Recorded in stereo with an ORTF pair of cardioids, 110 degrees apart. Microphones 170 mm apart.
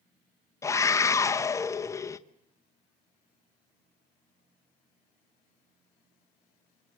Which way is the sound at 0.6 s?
15° left.